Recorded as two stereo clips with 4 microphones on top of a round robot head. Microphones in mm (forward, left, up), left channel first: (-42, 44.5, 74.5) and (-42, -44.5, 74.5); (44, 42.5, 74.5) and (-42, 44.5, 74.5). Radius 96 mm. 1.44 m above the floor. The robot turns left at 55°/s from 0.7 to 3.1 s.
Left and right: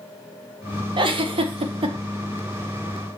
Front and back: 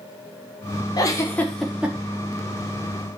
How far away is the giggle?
About 1.6 m.